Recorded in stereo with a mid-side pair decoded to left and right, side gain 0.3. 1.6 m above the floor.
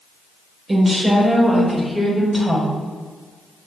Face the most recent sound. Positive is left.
turn(degrees=0)